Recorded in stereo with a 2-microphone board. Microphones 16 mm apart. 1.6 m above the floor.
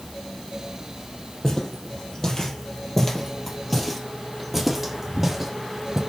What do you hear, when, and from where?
1.4 s footsteps: 35° left (ahead or behind), 3 m; by 6.0 s 25° right (ahead or behind), 3 m